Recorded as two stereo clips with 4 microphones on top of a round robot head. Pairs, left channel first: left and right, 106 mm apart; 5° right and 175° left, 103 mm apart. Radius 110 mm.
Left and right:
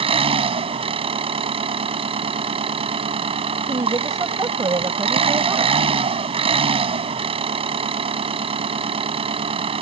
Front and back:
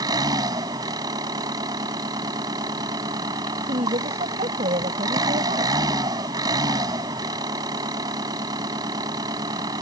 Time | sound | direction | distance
0.0 | an engine running | 120° right | ?
3.7 | a woman speaking | 150° right | ?